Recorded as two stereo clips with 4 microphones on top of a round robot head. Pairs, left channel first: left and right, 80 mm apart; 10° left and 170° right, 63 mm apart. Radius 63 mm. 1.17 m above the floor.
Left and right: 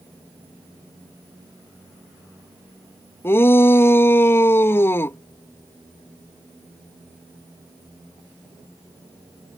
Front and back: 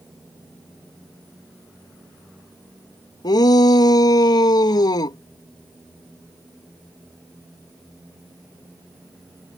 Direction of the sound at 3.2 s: 30° left.